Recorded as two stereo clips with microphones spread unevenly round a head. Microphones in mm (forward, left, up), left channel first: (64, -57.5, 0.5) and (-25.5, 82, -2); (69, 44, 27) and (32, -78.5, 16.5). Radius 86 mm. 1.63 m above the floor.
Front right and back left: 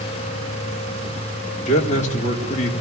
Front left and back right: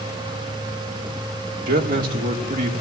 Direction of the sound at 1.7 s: 110° right.